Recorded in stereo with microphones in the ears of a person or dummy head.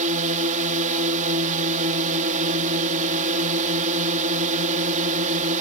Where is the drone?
40° right (ahead or behind).